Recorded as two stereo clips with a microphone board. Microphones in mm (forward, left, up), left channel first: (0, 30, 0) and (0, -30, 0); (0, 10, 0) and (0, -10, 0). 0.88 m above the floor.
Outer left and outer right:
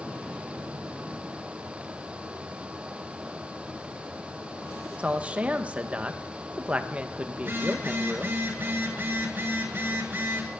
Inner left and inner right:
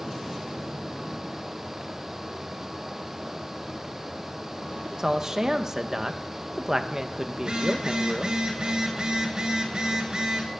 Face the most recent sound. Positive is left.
turn(degrees=-30)  # may be behind; listen again after turning